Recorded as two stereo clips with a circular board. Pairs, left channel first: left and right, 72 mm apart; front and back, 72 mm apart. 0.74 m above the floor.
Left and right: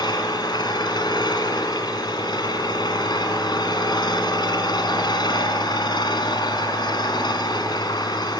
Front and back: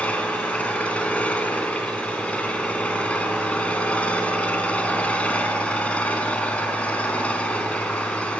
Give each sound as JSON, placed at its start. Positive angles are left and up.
{"t": 0.0, "sound": "an engine running", "azimuth_deg": 70, "distance_m": 4.5}